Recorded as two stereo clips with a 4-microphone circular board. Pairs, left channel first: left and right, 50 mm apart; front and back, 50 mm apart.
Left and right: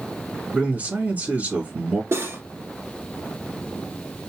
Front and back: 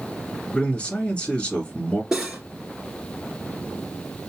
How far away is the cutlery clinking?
About 1.8 m.